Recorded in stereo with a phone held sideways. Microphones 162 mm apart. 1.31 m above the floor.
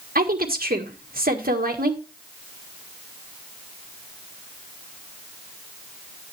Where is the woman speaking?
65° right (ahead or behind), 1.6 m.